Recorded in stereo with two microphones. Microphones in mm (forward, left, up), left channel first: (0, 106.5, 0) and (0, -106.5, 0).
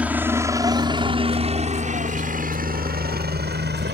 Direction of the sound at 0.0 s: 5° right (ahead or behind).